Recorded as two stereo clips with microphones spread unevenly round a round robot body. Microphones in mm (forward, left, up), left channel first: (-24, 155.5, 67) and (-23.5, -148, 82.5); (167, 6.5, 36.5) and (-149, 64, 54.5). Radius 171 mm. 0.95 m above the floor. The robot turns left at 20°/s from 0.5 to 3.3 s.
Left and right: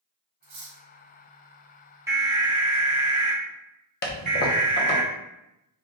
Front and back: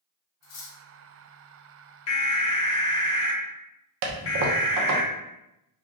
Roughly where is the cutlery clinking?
Ahead right.